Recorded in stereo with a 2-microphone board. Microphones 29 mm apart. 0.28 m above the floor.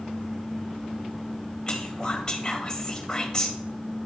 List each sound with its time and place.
1.7 s whispering: 25° left (ahead or behind), 0.9 m